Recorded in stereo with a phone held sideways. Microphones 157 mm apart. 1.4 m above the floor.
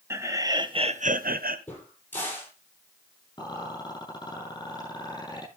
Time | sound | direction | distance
0.1 | laughter | 15° right (ahead or behind) | 1.9 m
1.7 | a crack | 10° left (ahead or behind) | 7.5 m
3.4 | a rattle | 25° left (ahead or behind) | 9.5 m